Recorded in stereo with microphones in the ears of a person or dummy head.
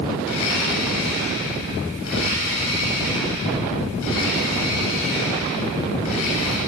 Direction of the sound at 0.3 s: 75° left (ahead or behind).